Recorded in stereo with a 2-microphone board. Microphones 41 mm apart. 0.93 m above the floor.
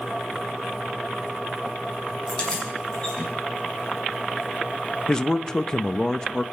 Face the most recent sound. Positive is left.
turn(degrees=20)  # may be behind; listen again after turning